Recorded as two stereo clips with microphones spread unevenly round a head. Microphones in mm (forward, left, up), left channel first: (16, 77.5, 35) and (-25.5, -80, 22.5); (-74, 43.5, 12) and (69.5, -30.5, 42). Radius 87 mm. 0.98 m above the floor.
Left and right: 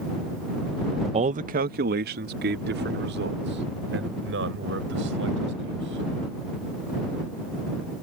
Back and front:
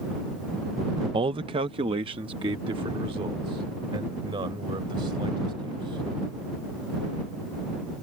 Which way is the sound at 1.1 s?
90° right.